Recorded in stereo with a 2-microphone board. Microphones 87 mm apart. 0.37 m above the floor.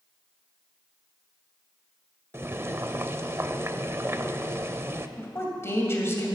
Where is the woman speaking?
30° left (ahead or behind), 2 m.